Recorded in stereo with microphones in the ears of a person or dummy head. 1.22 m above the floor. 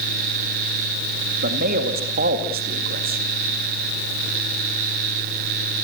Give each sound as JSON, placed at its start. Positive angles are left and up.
{"t": 1.4, "sound": "a man speaking", "side_deg": -50, "distance_m": 2.0}